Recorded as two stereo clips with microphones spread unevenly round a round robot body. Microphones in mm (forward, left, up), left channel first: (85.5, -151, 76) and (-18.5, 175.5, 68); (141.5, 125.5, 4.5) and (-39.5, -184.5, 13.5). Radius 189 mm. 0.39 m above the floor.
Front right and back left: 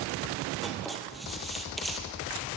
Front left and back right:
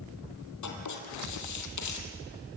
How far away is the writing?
About 3.5 m.